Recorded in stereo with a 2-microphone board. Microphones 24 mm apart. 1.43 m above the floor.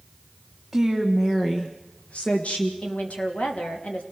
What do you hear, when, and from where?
0.7 s a woman speaking: 5° right (ahead or behind), 1.9 m; by 2.7 s 80° left, 2.5 m
2.8 s a woman speaking: 75° left (ahead or behind), 3 m